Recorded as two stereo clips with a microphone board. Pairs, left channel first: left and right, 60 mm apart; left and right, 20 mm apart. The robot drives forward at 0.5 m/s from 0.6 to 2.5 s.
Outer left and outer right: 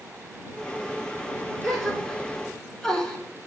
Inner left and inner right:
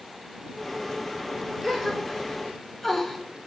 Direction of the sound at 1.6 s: 5° left (ahead or behind).